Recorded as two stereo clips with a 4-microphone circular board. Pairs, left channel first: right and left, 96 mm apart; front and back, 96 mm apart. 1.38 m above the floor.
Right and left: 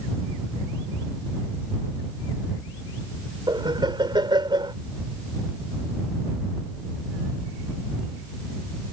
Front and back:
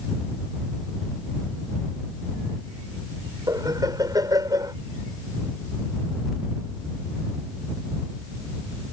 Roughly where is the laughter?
Behind left.